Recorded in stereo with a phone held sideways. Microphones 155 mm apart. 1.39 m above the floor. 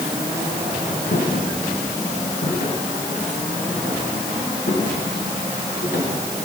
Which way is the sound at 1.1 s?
70° left (ahead or behind).